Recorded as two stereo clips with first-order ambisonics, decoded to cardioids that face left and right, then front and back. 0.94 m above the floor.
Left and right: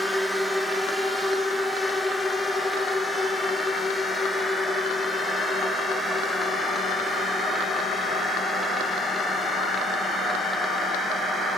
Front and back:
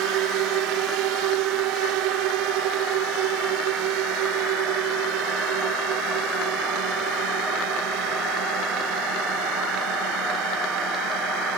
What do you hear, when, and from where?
0.0 s a drone: 175° left; by 11.6 s 160° left